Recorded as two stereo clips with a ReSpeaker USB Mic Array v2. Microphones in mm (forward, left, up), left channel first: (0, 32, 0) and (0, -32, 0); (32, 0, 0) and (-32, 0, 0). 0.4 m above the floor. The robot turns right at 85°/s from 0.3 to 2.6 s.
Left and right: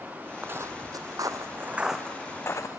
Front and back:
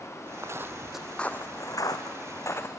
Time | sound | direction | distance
0.4 | footsteps | 145° right | 0.9 m